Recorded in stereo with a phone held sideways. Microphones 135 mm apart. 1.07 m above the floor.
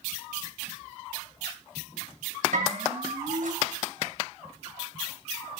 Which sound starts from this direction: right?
A bell, at 2.5 s.